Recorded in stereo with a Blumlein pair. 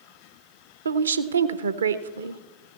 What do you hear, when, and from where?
0.8 s a woman speaking: 70° right, 0.6 m